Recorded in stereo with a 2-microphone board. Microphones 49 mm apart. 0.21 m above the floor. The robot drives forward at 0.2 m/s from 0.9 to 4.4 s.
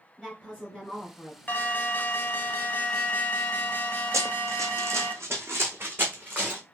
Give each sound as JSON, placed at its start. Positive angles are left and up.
{"t": 0.2, "sound": "a woman speaking", "side_deg": -20, "distance_m": 2.5}
{"t": 1.5, "sound": "an alarm", "side_deg": 40, "distance_m": 0.8}
{"t": 4.1, "sound": "running footsteps", "side_deg": -80, "distance_m": 0.8}